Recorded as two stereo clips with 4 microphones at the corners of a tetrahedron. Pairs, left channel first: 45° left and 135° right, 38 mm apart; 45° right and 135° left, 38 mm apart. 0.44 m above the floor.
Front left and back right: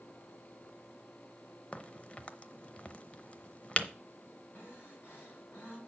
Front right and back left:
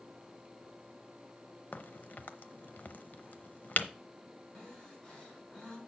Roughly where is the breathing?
Ahead.